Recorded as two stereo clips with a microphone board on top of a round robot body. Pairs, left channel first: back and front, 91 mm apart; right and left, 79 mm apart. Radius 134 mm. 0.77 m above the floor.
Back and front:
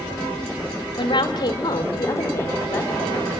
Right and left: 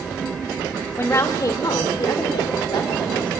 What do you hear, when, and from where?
1.0 s a woman speaking: 150° right, 2 m; by 3.3 s 110° right, 4.5 m